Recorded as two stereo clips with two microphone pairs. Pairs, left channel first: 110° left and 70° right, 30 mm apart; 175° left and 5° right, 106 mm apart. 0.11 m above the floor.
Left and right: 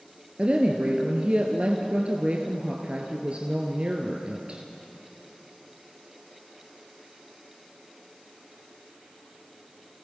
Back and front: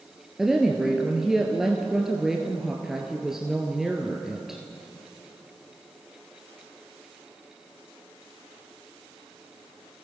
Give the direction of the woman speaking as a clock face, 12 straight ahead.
3 o'clock.